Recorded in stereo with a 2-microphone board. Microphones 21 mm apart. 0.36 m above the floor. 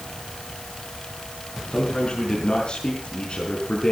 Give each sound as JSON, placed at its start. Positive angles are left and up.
{"t": 1.7, "sound": "a man speaking", "side_deg": 45, "distance_m": 4.5}